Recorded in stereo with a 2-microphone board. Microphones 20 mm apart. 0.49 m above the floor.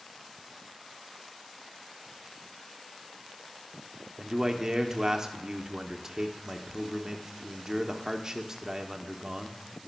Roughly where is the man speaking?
Right.